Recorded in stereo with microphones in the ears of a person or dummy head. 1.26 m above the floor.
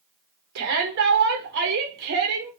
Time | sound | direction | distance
0.6 | a shout | 65° right (ahead or behind) | 1.4 m